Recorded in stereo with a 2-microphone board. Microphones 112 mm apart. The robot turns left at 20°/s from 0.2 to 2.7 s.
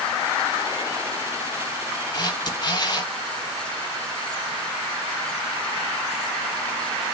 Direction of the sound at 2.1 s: 40° left (ahead or behind).